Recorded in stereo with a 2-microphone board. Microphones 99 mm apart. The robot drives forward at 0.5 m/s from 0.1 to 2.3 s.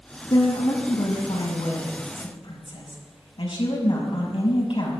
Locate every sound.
0.3 s a woman speaking: 55° left (ahead or behind), 5.5 m; by 5.0 s 65° left (ahead or behind), 5 m